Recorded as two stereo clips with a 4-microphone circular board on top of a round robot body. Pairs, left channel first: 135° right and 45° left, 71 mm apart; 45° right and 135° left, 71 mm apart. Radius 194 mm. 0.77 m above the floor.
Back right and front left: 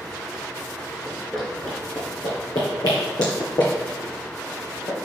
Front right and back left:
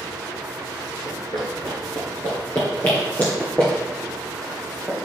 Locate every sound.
1.1 s running footsteps: 10° right, 0.7 m; by 5.0 s 115° right, 2.5 m